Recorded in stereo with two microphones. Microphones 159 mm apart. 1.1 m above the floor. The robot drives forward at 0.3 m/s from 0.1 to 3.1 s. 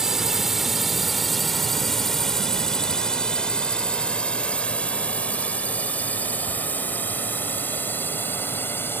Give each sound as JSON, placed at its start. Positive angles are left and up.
{"t": 0.0, "sound": "a drone", "side_deg": -5}